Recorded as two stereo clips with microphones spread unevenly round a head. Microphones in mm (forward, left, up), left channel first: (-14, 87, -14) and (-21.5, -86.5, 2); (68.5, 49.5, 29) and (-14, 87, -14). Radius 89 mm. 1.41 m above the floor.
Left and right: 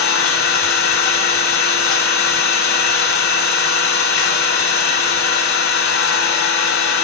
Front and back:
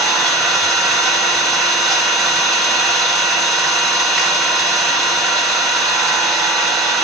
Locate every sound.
0.0 s an engine running: 60° left, 6.5 m